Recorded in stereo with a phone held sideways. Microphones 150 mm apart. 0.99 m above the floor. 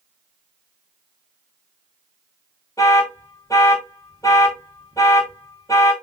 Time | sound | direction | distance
2.8 | an alarm | 20° left (ahead or behind) | 0.9 m